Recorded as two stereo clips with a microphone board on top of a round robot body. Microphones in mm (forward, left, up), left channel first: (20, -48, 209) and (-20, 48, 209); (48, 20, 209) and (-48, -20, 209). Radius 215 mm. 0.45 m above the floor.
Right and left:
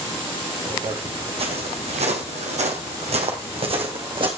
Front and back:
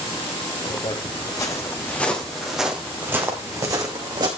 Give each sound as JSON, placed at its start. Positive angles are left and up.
{"t": 0.7, "sound": "footsteps", "azimuth_deg": 65, "distance_m": 2.0}